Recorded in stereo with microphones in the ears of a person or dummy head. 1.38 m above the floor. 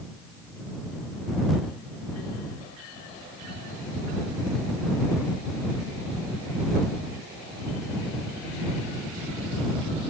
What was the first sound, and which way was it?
Only background noise.